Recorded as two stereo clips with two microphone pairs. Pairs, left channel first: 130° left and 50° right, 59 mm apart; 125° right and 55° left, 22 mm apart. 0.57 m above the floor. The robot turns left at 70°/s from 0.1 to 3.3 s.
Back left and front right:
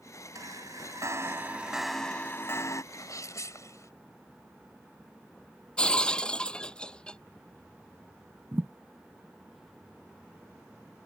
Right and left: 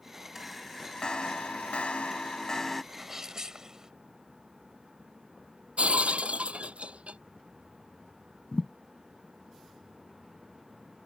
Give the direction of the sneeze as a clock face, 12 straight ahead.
7 o'clock.